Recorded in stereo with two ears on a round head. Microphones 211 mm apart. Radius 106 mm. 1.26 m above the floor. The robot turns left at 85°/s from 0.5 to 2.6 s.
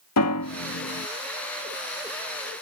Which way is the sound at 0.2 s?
80° left.